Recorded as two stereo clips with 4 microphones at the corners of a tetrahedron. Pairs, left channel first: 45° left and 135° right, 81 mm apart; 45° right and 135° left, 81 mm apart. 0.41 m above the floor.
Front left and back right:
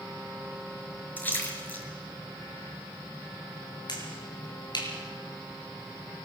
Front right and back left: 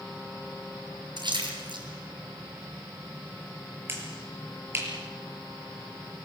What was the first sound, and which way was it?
A splash, 115° left.